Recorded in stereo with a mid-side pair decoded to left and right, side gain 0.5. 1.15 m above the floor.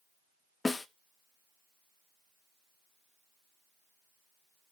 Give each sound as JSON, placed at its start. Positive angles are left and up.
{"t": 0.7, "sound": "a snare drum", "azimuth_deg": 20, "distance_m": 0.8}